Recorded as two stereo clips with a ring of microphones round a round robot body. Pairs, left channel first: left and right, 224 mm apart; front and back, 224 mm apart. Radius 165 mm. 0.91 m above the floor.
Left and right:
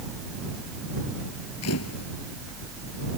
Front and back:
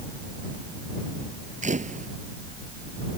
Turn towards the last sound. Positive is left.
turn(degrees=125)